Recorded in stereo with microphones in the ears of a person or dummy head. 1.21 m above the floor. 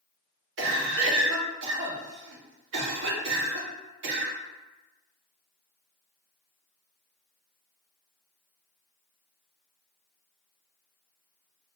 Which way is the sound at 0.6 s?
65° right (ahead or behind).